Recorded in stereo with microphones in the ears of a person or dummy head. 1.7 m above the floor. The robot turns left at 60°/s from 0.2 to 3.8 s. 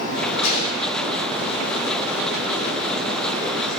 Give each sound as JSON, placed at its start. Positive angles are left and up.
{"t": 0.4, "sound": "a gunshot", "side_deg": 55, "distance_m": 6.5}